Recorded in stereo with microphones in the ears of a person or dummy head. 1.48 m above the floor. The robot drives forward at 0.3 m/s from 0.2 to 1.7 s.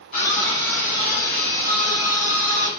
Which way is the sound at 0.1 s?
55° left (ahead or behind).